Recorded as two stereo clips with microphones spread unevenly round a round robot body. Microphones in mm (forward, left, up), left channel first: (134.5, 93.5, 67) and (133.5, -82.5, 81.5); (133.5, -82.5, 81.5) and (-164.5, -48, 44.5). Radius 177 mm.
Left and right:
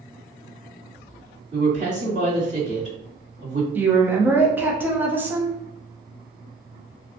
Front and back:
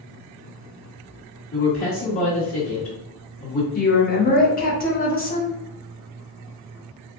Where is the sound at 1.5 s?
45° right, 1.9 m.